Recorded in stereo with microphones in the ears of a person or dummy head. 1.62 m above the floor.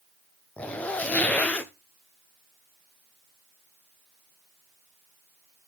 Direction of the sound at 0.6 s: 10° left (ahead or behind).